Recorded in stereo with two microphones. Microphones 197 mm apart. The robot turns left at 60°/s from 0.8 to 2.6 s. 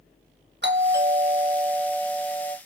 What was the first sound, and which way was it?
A doorbell, 110° right.